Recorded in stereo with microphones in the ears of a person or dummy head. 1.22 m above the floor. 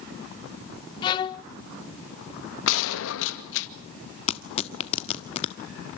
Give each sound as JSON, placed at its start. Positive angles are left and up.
{"t": 1.0, "sound": "a violin", "side_deg": 20, "distance_m": 0.6}
{"t": 2.7, "sound": "a gunshot", "side_deg": 70, "distance_m": 2.0}
{"t": 4.3, "sound": "tearing paper", "side_deg": 30, "distance_m": 1.3}